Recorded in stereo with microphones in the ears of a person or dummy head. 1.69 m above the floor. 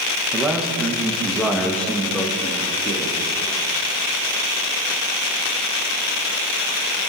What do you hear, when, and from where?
0.3 s a man speaking: 10° right (ahead or behind), 2.5 m; by 3.2 s 15° left (ahead or behind), 4 m